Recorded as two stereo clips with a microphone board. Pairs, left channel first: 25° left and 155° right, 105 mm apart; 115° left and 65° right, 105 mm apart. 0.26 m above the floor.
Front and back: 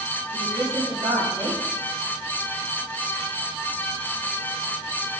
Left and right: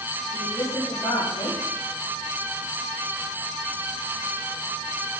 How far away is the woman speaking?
About 7 m.